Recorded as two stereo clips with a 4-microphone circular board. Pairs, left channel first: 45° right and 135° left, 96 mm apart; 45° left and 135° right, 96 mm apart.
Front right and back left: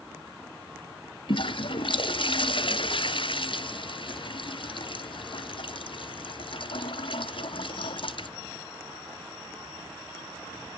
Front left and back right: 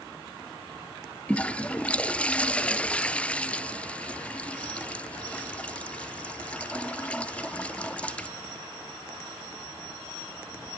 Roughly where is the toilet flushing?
Ahead right.